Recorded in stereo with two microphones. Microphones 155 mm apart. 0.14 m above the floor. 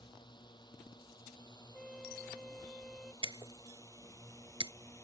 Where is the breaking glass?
30° right (ahead or behind).